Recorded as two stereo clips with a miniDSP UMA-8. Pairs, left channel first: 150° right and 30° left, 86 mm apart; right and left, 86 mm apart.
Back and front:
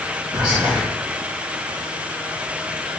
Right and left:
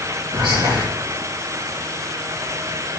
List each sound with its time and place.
0.3 s whispering: 55° left, 0.7 m